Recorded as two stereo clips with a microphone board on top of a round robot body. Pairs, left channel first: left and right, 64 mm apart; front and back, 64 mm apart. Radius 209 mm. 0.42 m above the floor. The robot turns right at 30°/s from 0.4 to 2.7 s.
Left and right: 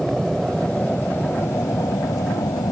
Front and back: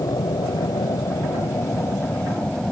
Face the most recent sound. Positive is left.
turn(degrees=80)